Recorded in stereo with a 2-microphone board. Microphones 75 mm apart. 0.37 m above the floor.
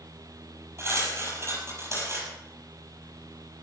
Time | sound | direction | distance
0.8 | cutlery clinking | 40° right (ahead or behind) | 5.5 m